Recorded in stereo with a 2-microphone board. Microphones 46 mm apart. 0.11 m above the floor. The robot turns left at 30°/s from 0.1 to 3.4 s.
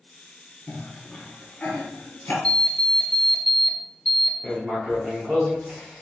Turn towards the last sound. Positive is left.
turn(degrees=-15)  # may be behind; listen again after turning